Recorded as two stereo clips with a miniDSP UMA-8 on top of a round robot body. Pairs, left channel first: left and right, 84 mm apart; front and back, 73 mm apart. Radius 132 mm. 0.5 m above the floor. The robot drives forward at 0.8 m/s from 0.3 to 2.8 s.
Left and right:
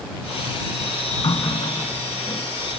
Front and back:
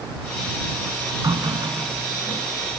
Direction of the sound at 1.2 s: 135° left.